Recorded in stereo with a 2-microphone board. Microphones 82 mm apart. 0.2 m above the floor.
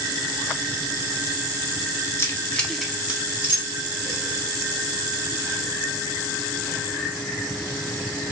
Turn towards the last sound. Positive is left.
turn(degrees=-35)  # may be behind; listen again after turning